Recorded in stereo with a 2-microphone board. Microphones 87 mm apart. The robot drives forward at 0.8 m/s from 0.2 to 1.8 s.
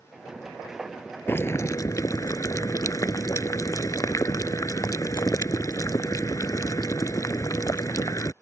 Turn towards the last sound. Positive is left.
turn(degrees=40)  # may be behind; listen again after turning